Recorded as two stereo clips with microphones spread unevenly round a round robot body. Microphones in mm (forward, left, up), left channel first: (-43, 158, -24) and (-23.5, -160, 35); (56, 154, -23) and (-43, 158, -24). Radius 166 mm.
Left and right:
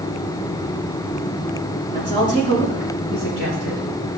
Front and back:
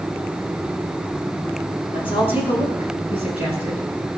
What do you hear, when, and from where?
1.9 s a woman speaking: 20° left, 5.5 m; by 3.8 s 10° left, 6 m